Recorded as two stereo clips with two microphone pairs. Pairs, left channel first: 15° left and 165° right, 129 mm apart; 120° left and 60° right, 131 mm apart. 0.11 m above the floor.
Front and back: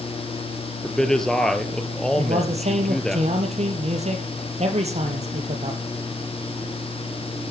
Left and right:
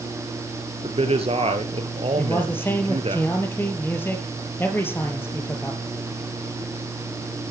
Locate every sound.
0.8 s a man speaking: 70° right, 2.0 m
2.2 s a man speaking: 170° right, 3.5 m